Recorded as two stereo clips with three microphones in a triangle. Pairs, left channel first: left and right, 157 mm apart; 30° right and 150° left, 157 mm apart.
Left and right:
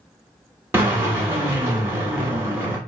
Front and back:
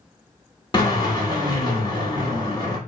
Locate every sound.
0.7 s a drill: 35° right, 1.0 m